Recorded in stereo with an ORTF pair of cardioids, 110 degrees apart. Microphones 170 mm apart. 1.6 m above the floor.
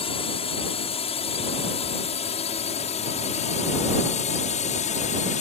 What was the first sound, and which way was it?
A drone, 35° left.